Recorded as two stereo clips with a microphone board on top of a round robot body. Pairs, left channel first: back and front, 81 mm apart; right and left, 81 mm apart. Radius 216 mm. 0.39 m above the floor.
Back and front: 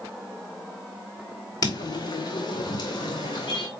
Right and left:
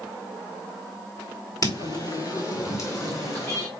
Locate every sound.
1.6 s footsteps: 135° right, 0.5 m; by 3.7 s 140° right, 2.5 m